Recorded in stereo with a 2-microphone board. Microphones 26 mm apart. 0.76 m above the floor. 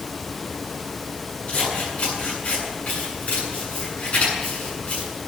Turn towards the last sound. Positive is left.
turn(degrees=65)  # may be behind; listen again after turning